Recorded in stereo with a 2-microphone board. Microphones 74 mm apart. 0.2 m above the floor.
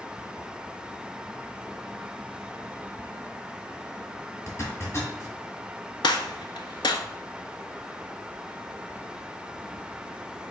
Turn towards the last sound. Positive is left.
turn(degrees=80)